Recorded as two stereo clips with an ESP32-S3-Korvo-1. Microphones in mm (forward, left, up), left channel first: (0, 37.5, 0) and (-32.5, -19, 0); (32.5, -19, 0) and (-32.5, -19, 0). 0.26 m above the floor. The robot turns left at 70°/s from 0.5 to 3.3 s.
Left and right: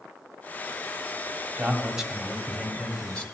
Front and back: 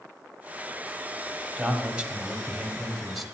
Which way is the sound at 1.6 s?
145° right.